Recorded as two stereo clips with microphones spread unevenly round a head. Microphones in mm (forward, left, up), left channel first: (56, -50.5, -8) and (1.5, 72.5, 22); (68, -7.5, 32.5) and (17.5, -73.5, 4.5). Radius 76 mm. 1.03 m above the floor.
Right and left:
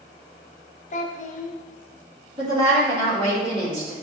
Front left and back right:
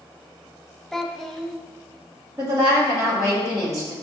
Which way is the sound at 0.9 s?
30° right.